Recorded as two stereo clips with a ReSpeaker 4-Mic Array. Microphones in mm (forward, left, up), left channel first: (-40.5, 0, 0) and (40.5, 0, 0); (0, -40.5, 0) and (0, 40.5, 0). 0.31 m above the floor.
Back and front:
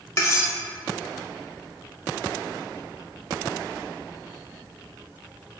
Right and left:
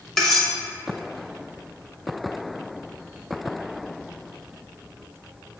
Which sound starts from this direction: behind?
Cutlery clinking, at 0.2 s.